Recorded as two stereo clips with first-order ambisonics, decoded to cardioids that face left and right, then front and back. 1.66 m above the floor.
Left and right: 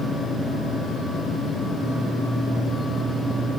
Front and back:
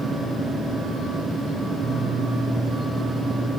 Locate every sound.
Only background noise.